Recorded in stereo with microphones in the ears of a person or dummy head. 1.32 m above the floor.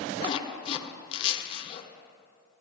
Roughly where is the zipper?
Left.